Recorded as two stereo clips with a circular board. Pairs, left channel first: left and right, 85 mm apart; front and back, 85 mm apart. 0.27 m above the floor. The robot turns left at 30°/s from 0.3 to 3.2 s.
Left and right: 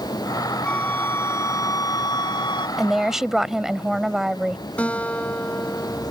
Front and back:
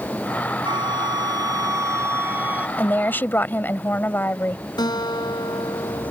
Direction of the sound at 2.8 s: Straight ahead.